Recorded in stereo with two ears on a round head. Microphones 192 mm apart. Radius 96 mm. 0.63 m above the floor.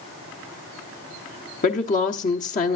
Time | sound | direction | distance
1.6 | a woman speaking | 35° left (ahead or behind) | 1.1 m